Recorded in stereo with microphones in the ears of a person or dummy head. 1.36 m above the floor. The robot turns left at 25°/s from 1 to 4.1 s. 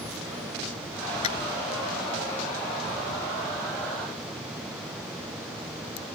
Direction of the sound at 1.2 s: 35° left (ahead or behind).